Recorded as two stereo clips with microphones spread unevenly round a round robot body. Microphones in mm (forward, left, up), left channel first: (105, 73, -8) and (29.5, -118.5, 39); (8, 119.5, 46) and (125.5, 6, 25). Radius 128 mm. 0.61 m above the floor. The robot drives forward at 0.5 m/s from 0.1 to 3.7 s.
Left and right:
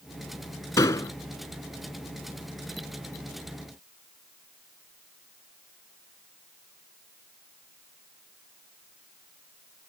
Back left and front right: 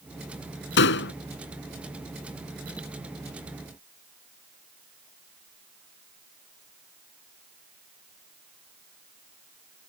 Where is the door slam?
150° left.